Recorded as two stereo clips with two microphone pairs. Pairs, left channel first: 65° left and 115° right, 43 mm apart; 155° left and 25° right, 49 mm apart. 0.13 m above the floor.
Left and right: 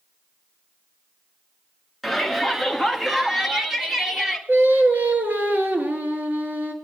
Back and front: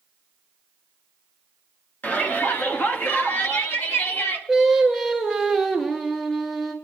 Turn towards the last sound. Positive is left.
turn(degrees=-120)